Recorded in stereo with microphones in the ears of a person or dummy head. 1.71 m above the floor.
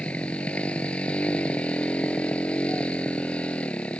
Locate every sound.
0.0 s a motorcycle: 10° left (ahead or behind)